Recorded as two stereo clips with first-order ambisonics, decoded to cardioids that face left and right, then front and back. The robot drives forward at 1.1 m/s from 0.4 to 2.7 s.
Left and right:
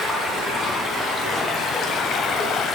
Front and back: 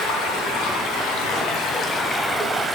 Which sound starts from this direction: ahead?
Running water, at 0.0 s.